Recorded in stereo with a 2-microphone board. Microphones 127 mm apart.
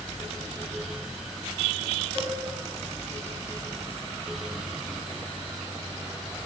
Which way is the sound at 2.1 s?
25° left (ahead or behind).